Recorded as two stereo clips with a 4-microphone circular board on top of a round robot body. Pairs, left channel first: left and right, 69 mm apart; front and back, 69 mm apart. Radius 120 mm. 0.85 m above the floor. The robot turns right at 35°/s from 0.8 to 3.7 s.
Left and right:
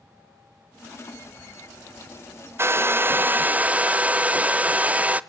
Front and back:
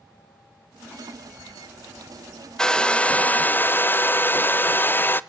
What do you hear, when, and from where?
2.6 s a hair dryer: 75° right, 0.7 m; by 5.2 s 35° right, 0.7 m